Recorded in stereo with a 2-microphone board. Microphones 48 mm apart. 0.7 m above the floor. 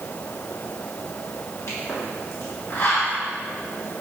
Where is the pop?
70° left (ahead or behind), 3.5 m.